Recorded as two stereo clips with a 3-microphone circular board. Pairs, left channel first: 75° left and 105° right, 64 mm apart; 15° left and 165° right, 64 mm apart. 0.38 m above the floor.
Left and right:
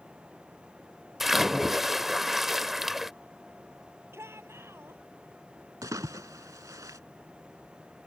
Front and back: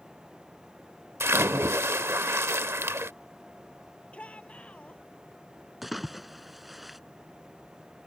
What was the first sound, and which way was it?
A splash, 170° left.